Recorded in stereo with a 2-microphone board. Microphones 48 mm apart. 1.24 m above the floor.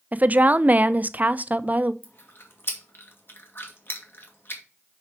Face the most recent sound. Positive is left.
turn(degrees=50)  # may be behind; listen again after turning